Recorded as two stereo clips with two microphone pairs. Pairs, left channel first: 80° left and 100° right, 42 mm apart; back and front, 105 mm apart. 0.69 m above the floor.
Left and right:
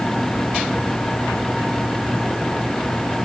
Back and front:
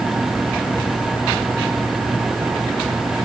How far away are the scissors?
No scissors in this recording.